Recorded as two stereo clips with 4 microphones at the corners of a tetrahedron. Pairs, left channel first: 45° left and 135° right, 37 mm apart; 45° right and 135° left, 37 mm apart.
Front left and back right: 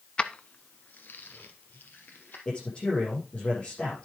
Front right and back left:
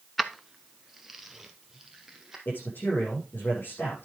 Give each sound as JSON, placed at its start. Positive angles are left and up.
{"t": 0.2, "sound": "keys jangling", "azimuth_deg": 50, "distance_m": 0.8}
{"t": 2.5, "sound": "a man speaking", "azimuth_deg": -15, "distance_m": 7.5}